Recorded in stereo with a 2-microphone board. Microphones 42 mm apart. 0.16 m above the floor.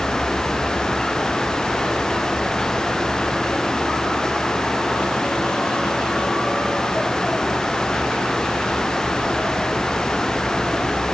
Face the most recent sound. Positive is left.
No sound to turn to.